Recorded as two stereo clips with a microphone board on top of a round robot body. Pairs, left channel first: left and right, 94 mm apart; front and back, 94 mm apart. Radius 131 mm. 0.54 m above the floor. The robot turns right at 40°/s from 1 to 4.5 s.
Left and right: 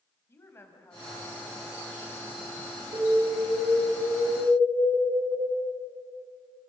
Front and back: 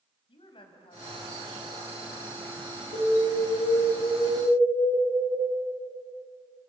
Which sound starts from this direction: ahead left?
A woman speaking, at 0.3 s.